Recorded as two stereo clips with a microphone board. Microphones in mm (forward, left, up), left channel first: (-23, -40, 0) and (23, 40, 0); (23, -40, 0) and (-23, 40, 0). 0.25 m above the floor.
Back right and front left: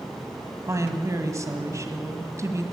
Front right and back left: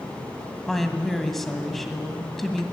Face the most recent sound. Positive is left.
turn(degrees=25)